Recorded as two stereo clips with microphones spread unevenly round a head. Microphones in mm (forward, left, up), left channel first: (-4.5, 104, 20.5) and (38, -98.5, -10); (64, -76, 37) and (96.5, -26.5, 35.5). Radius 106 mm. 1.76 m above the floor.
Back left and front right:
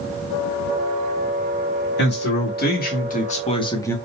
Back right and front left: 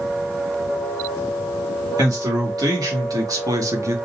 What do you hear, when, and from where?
2.0 s a man speaking: 70° left, 2.5 m; by 4.0 s 25° left, 1.0 m